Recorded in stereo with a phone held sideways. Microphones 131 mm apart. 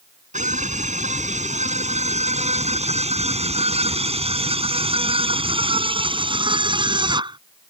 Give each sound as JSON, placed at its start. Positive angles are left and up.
{"t": 0.3, "sound": "a scream", "side_deg": -70}